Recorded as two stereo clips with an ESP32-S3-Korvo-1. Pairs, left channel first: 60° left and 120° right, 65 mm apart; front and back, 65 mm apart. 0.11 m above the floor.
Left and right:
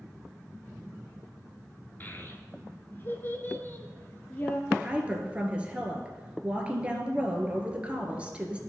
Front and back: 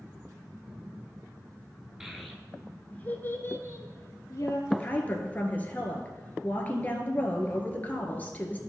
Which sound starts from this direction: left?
A child speaking, at 2.0 s.